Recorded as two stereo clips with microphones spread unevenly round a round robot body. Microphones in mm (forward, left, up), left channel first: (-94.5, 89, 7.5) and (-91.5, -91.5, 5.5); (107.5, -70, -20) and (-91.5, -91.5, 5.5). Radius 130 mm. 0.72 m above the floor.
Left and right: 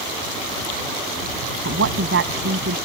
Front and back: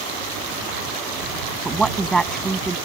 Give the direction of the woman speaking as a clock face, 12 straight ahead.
3 o'clock.